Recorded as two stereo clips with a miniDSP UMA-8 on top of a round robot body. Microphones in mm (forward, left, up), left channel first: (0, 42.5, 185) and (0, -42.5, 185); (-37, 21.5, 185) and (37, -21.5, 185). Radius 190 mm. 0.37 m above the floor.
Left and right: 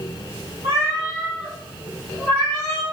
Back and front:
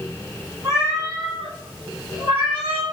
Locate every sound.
0.6 s a cat meowing: 150° right, 1.5 m; by 2.8 s 155° left, 1.4 m